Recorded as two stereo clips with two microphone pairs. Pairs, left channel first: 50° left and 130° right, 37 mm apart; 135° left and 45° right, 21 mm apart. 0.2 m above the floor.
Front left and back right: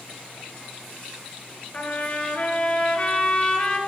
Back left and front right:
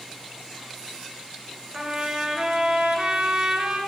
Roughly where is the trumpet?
Ahead.